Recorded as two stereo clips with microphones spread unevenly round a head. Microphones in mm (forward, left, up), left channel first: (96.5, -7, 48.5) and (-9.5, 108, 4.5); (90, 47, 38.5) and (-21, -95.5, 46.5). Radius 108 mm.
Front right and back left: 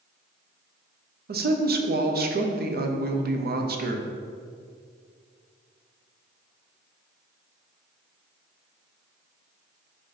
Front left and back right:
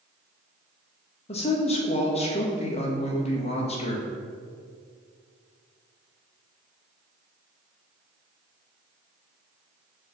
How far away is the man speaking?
About 0.9 m.